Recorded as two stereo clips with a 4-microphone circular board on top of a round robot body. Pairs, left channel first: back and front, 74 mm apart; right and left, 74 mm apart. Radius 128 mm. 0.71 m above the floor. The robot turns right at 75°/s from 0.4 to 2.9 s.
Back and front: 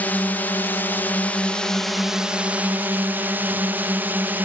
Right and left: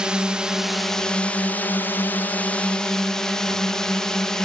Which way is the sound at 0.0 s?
155° left.